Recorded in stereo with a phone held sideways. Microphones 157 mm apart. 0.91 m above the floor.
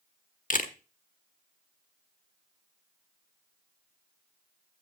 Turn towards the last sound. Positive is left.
turn(degrees=55)  # may be behind; listen again after turning